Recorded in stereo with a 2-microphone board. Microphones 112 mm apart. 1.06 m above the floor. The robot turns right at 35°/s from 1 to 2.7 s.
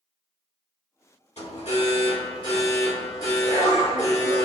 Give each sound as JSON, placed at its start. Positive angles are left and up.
{"t": 1.4, "sound": "an alarm", "azimuth_deg": 100, "distance_m": 2.0}